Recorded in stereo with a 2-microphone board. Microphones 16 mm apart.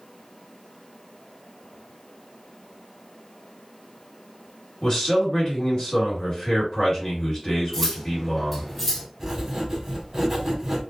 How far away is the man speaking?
About 1.8 m.